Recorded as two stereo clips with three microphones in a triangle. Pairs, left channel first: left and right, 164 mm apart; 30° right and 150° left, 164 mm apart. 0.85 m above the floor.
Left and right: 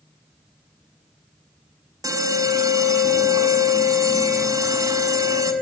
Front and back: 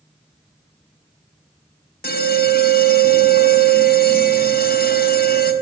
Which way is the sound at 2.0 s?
20° right.